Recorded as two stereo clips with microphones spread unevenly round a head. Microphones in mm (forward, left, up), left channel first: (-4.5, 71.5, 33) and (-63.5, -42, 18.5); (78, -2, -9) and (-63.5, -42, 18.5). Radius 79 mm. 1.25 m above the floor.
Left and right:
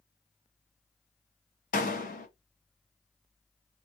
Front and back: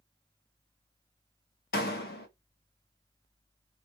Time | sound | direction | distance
1.7 | a door slam | 50° left | 0.8 m